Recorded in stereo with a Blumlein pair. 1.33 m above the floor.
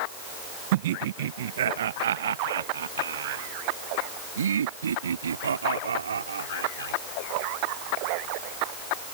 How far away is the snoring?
No snoring in this recording.